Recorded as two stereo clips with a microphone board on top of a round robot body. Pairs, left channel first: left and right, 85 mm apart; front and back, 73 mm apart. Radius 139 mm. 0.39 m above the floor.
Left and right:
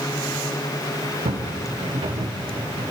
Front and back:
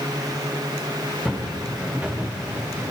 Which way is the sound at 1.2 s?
95° right.